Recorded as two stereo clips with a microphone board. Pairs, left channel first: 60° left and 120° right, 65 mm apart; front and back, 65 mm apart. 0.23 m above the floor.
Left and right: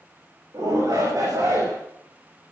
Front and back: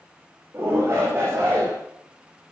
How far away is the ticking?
I don't hear ticking.